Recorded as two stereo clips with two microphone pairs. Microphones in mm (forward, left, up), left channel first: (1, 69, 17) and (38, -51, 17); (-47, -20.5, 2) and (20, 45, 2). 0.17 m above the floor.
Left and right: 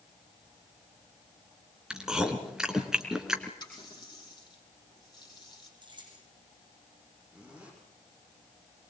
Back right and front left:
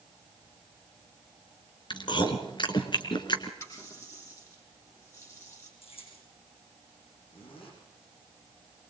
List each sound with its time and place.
1.9 s chewing: 155° right, 2.5 m
3.6 s a running tap: 165° left, 5 m
5.8 s keys jangling: 125° right, 7 m
7.3 s a zipper: 155° right, 7.5 m